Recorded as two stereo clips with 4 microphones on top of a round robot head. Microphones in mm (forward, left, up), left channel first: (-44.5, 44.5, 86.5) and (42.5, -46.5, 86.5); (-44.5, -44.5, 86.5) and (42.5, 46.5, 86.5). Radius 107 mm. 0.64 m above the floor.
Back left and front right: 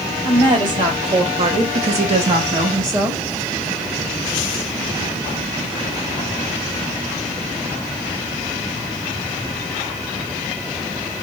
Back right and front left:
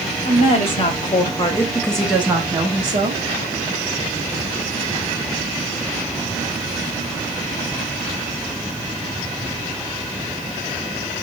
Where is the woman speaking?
100° right, 1.8 m; by 3.2 s 20° left, 1.2 m.